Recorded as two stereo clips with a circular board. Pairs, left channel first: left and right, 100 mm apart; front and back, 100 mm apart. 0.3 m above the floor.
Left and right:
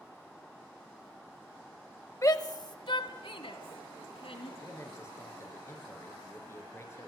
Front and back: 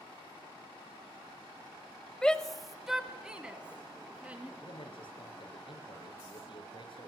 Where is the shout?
75° left, 1.1 m; by 4.5 s 105° left, 3 m.